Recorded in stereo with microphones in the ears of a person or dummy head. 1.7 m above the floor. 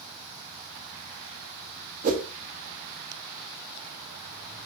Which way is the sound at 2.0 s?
45° right (ahead or behind).